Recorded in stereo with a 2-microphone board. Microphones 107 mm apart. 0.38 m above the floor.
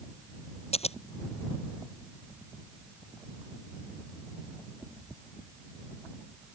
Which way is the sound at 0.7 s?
75° left (ahead or behind).